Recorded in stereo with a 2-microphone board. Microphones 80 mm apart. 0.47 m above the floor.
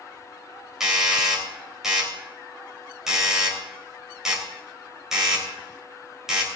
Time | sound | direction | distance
0.8 | a doorbell | 5° right (ahead or behind) | 3 m